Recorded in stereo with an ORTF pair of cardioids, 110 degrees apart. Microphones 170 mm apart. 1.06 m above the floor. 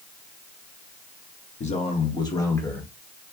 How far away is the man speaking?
About 1.2 m.